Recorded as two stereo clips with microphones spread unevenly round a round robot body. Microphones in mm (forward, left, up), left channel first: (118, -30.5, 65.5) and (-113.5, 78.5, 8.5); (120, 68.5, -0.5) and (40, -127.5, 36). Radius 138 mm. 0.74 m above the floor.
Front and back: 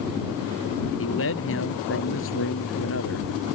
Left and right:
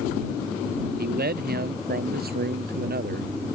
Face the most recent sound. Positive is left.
turn(degrees=-70)